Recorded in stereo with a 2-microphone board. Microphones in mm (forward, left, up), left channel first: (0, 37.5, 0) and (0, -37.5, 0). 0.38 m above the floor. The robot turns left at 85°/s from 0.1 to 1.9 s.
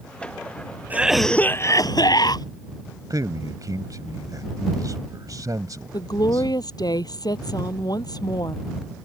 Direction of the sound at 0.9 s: 155° right.